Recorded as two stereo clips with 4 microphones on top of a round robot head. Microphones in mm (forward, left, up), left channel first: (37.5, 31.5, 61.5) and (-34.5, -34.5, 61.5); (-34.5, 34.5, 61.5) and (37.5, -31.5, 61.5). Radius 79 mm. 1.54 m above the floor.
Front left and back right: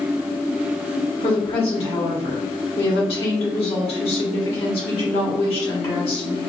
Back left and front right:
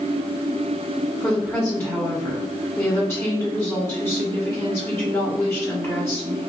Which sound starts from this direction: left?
A woman speaking, at 1.2 s.